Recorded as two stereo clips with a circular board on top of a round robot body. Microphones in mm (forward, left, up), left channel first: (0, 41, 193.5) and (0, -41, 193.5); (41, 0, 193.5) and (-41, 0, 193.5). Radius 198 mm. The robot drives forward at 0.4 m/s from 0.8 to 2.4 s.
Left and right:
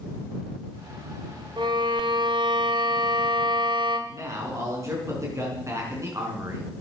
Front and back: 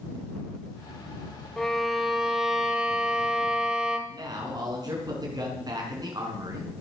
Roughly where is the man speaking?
Behind right.